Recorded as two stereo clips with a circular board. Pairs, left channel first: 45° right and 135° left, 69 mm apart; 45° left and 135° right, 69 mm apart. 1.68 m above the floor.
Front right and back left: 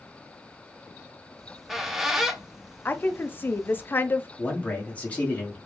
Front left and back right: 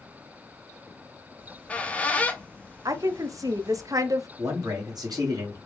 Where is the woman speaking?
105° right, 0.5 m.